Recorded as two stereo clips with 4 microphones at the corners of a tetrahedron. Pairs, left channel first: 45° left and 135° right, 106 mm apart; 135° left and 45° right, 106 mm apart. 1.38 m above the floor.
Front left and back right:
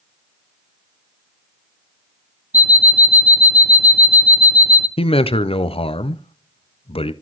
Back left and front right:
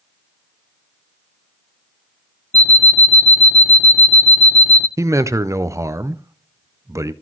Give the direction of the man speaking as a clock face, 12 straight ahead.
11 o'clock.